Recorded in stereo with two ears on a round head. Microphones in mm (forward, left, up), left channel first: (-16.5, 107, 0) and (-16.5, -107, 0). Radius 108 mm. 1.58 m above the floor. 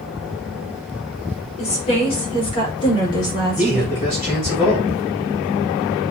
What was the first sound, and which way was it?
A woman speaking, 30° left (ahead or behind).